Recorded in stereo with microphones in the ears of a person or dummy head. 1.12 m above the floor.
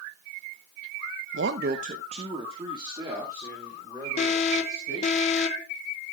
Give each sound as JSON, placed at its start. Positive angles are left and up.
{"t": 1.3, "sound": "a man speaking", "side_deg": -65, "distance_m": 0.7}
{"t": 4.2, "sound": "an alarm", "side_deg": 40, "distance_m": 1.6}